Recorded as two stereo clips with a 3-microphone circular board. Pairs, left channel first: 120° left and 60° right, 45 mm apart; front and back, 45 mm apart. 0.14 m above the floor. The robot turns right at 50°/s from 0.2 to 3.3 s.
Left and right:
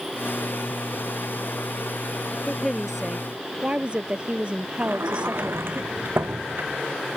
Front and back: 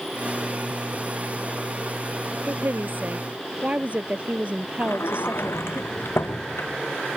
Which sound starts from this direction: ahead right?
A sliding door, at 4.8 s.